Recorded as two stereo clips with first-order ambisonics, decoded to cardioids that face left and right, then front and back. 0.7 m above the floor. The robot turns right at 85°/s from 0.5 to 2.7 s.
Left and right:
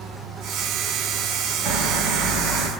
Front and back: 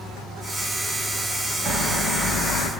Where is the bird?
115° right, 3.5 m; by 2.7 s 25° right, 3.5 m.